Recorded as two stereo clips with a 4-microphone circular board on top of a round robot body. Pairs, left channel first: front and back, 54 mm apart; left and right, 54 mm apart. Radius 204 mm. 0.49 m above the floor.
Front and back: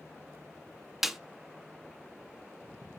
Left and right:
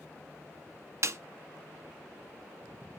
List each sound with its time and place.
1.0 s a snare drum: 95° right, 0.9 m